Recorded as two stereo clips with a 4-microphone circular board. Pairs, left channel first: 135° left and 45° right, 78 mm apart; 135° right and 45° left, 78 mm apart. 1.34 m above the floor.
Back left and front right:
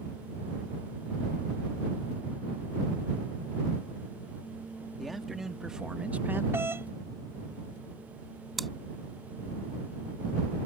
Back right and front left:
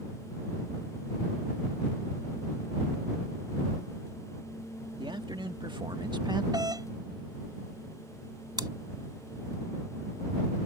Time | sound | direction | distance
5.0 | a man speaking | 45° left | ?
6.5 | a doorbell | 15° left | ?
8.6 | chewing | 45° left | ?